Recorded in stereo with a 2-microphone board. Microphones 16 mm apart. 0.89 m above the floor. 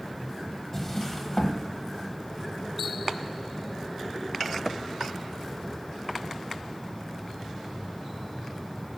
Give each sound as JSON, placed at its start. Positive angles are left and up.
{"t": 0.7, "sound": "a drawer", "side_deg": 20, "distance_m": 1.4}